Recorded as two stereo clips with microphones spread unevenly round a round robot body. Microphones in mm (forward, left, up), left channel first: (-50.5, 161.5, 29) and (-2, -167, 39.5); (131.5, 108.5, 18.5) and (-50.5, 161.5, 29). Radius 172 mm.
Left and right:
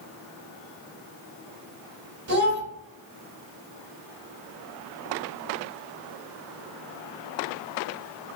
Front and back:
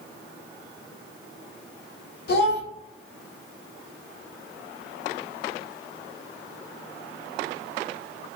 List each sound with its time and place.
2.3 s a child speaking: 25° right, 1.5 m